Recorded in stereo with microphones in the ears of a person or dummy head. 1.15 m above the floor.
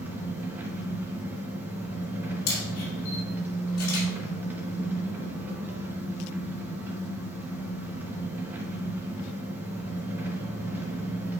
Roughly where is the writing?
I don't hear writing.